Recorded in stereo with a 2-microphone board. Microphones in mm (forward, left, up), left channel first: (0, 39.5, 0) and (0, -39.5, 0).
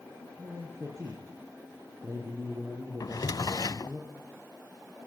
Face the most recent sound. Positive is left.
turn(degrees=55)  # may be behind; listen again after turning